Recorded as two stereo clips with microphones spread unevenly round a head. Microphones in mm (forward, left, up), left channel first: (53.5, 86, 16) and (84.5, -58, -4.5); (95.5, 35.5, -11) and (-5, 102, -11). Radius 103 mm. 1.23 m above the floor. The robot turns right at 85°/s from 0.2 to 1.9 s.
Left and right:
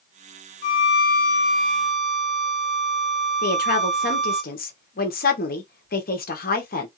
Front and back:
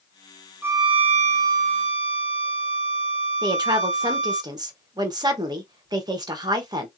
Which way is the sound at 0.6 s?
70° left.